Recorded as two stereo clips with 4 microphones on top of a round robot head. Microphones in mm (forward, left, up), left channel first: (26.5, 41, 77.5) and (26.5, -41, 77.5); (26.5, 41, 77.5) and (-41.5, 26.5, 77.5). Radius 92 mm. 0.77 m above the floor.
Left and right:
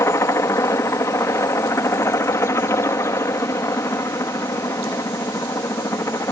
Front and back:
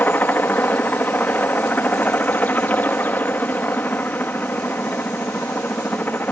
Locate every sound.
0.0 s a helicopter: 60° left